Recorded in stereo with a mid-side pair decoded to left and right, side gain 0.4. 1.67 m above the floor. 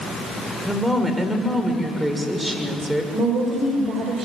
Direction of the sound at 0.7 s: 15° right.